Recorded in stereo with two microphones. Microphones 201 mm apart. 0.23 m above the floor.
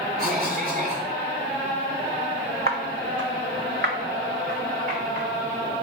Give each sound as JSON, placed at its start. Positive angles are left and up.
{"t": 0.2, "sound": "a cough", "side_deg": -45, "distance_m": 1.9}
{"t": 2.7, "sound": "footsteps", "side_deg": -50, "distance_m": 0.6}